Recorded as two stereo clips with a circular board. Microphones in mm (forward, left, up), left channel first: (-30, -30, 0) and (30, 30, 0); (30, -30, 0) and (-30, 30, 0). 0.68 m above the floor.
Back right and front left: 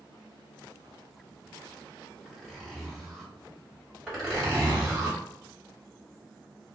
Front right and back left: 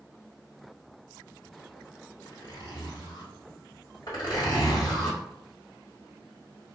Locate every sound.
2.2 s a zipper: 50° right, 1.4 m
4.1 s a zipper: 45° right, 1.8 m